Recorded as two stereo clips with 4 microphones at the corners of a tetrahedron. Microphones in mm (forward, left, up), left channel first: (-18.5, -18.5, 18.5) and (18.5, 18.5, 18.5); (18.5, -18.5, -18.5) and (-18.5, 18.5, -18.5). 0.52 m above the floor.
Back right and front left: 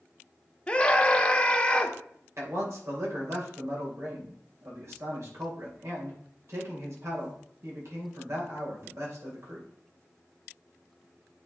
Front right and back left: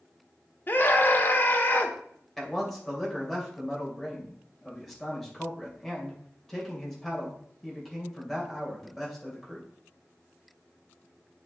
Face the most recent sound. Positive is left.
turn(degrees=40)